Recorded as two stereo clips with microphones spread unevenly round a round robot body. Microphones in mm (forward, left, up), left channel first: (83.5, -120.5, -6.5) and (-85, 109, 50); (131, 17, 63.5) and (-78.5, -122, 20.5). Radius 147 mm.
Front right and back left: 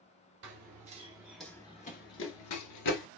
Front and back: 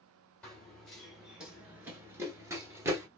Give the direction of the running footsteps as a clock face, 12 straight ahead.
8 o'clock.